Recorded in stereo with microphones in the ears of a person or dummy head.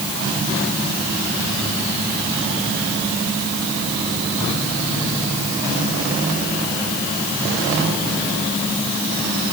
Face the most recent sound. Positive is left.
No sound to turn to.